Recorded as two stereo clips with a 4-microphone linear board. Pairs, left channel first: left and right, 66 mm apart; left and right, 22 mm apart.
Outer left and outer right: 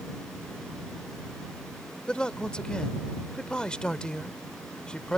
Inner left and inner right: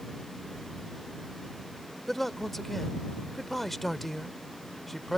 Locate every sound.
2.1 s a man speaking: 15° left (ahead or behind)